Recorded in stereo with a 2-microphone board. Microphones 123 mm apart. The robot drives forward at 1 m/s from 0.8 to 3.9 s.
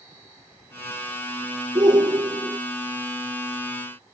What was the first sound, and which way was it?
A shout, 40° right (ahead or behind).